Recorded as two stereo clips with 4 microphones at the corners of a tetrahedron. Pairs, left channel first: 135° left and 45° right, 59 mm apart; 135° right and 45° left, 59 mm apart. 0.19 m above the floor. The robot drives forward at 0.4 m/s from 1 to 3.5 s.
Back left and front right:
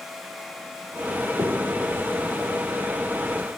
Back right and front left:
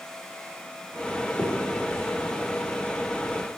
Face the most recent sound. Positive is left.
turn(degrees=-70)